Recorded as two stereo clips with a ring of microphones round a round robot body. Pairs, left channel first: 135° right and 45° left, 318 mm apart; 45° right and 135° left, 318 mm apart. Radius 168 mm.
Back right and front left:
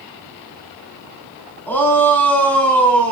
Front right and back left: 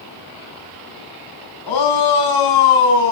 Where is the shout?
50° right, 6.5 m.